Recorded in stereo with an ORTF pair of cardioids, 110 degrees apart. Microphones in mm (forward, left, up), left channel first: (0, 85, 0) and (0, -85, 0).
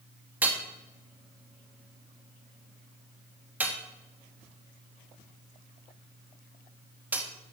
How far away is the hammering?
About 1.7 m.